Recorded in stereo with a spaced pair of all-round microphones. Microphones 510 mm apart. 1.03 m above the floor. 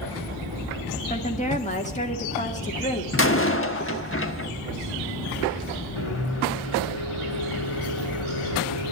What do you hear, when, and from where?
1.1 s a woman speaking: 15° left (ahead or behind), 2 m
3.1 s a door slam: 25° left (ahead or behind), 1.2 m
6.0 s a microwave: 80° left, 2.5 m